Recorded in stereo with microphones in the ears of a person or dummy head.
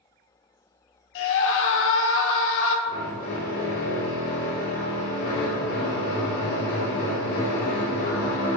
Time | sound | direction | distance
1.1 | a scream | 65° left (ahead or behind) | 0.8 m
2.9 | a drill | 50° left (ahead or behind) | 1.6 m